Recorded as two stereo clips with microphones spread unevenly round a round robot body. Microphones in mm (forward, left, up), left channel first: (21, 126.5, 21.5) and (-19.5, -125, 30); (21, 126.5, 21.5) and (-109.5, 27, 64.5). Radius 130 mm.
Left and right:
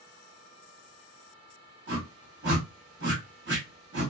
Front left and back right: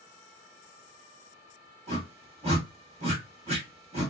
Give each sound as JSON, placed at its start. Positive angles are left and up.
{"t": 1.9, "sound": "a whoosh", "azimuth_deg": -90, "distance_m": 1.5}